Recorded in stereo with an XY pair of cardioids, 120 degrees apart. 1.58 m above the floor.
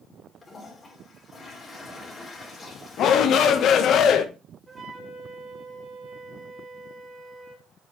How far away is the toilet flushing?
About 3 m.